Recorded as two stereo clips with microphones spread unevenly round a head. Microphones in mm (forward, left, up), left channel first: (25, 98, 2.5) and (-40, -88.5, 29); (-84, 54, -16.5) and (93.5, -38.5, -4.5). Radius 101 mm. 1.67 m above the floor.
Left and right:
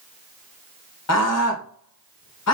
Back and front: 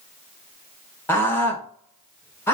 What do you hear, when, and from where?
1.1 s a scream: 70° left, 1.5 m